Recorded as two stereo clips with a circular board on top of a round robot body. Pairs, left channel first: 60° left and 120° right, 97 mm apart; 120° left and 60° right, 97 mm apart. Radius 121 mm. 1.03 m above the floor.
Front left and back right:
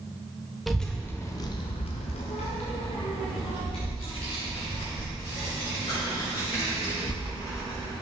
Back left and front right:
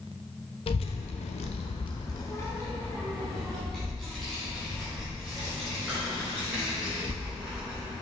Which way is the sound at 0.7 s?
150° left.